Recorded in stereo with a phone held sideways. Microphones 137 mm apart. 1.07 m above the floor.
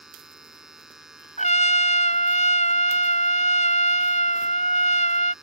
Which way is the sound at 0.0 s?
5° right (ahead or behind).